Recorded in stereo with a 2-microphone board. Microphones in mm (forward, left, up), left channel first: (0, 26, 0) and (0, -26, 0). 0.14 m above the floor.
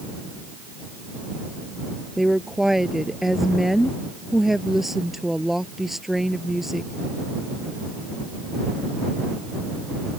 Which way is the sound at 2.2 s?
5° right (ahead or behind).